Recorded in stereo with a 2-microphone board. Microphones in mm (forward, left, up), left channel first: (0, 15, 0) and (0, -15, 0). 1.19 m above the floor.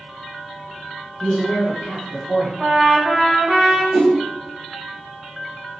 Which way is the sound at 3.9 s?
5° left (ahead or behind).